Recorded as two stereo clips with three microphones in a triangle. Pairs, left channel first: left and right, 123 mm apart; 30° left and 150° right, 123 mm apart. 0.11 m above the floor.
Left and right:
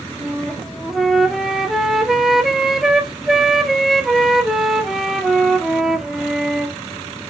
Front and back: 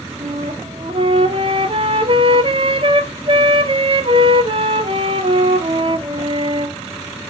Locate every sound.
0.2 s a flute: 175° right, 1.0 m